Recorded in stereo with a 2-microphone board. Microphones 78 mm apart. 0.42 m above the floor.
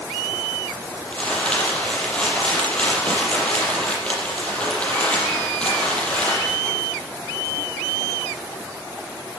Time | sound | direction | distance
1.1 | crumpling | 15° left (ahead or behind) | 7 m